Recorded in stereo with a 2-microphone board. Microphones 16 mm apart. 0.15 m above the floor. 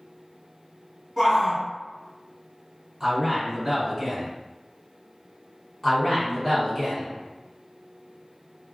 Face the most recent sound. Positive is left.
turn(degrees=20)  # may be behind; listen again after turning